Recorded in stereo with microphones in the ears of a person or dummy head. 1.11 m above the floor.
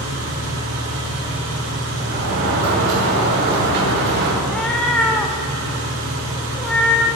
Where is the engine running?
80° right, 6 m.